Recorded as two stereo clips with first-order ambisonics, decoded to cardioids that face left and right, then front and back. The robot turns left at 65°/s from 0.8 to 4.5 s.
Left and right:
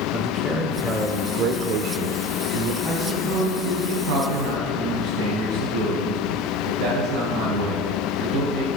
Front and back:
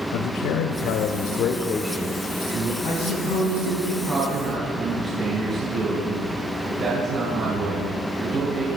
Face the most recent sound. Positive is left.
turn(degrees=-120)